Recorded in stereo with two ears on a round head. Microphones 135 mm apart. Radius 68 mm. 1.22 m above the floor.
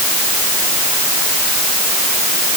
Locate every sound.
Only background noise.